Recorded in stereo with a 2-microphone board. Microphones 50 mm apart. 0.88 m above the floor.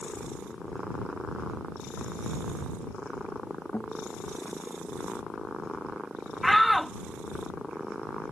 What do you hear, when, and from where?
3.7 s a guitar: 50° left (ahead or behind)
6.4 s a shout: centre (ahead or behind)